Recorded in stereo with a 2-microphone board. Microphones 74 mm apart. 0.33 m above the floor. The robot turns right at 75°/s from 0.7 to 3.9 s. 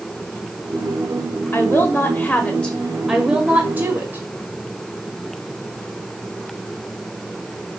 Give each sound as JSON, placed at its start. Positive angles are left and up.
{"t": 1.5, "sound": "a woman speaking", "azimuth_deg": 65, "distance_m": 1.1}